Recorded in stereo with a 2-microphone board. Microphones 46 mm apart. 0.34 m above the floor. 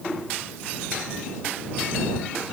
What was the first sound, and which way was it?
Only background noise.